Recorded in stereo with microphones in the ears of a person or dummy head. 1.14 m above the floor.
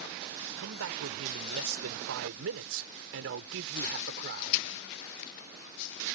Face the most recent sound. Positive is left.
turn(degrees=-50)  # may be behind; listen again after turning